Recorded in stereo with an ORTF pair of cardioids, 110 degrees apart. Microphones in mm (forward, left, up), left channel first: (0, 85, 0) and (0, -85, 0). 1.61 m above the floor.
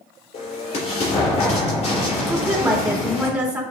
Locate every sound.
0.3 s an explosion: 40° left, 3.5 m
2.3 s a woman speaking: 10° right, 3 m